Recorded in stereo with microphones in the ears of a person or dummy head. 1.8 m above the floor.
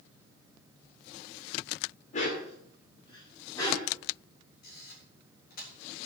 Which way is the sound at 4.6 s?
55° left (ahead or behind).